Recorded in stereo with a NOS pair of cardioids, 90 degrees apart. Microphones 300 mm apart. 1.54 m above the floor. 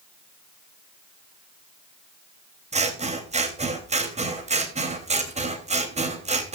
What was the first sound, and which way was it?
Scissors, 20° right.